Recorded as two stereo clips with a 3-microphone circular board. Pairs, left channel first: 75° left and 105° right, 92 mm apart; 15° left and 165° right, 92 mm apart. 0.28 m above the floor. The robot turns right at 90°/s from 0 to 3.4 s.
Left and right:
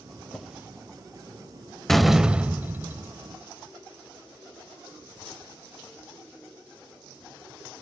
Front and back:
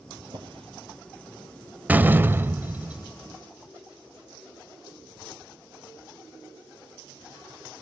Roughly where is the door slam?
Behind left.